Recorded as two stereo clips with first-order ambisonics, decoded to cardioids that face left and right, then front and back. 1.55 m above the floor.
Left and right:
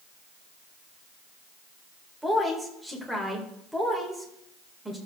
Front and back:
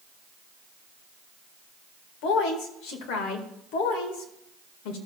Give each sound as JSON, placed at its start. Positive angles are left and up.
{"t": 2.2, "sound": "a woman speaking", "azimuth_deg": -5, "distance_m": 1.9}